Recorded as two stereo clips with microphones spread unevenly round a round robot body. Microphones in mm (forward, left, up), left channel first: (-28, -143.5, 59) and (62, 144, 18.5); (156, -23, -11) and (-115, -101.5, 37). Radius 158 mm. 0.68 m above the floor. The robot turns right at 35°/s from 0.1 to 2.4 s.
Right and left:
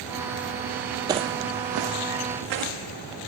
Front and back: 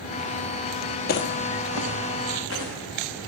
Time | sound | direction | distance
1.1 | footsteps | 10° right | 0.7 m